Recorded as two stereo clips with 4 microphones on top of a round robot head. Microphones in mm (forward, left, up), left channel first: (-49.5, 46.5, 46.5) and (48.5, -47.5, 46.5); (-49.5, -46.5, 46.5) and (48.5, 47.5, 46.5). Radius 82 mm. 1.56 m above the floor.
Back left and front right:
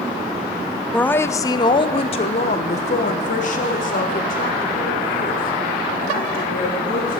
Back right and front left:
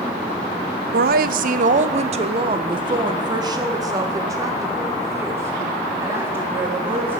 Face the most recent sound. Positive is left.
turn(degrees=120)